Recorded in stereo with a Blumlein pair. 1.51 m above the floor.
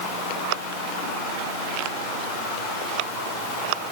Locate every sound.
Only background noise.